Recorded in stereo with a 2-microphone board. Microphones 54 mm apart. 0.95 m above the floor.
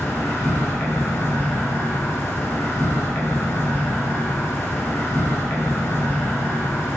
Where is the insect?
50° left (ahead or behind), 1.4 m.